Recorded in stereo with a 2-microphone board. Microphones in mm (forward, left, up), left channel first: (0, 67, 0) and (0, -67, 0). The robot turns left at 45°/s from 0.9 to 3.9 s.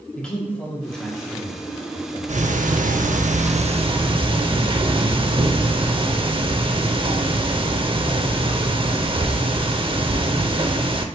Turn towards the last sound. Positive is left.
turn(degrees=-135)